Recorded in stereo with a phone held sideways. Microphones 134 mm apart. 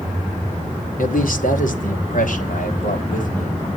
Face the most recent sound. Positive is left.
turn(degrees=70)  # may be behind; listen again after turning